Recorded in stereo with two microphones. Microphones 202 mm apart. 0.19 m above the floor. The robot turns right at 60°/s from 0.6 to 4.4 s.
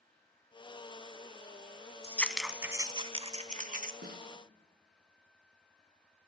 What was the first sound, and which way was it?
Scissors, 15° left (ahead or behind).